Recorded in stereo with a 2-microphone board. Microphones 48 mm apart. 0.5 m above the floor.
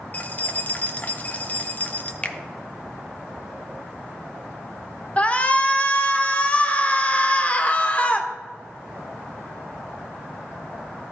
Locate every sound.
0.1 s keys jangling: 35° left (ahead or behind), 0.8 m
2.2 s a finger snap: 25° left (ahead or behind), 0.6 m
5.2 s a shout: 25° left (ahead or behind), 0.9 m